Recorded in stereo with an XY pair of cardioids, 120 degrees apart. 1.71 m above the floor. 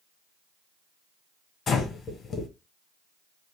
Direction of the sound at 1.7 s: 40° left.